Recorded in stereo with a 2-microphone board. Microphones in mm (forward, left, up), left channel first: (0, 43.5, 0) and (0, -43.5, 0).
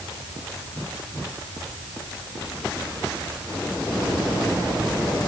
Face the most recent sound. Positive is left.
No sound to turn to.